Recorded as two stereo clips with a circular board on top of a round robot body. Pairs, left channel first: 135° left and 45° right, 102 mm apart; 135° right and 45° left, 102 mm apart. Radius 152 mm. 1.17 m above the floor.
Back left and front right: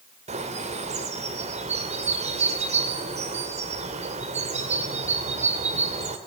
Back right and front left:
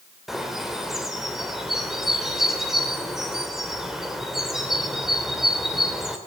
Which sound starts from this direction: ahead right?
A bird, at 0.3 s.